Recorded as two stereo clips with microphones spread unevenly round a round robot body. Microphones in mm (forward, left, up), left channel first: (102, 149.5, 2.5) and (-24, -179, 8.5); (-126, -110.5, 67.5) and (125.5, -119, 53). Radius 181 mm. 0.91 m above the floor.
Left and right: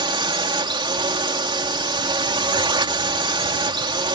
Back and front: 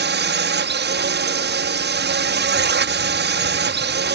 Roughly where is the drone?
Ahead right.